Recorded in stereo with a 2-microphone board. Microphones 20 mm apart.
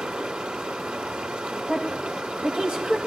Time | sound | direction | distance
0.0 | running water | 75° right (ahead or behind) | 2.5 m
1.7 | a woman speaking | 55° right (ahead or behind) | 2.5 m